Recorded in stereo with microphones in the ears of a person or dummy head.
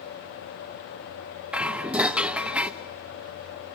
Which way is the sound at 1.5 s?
5° right (ahead or behind).